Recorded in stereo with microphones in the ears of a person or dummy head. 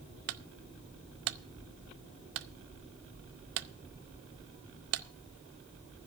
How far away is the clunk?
About 0.6 m.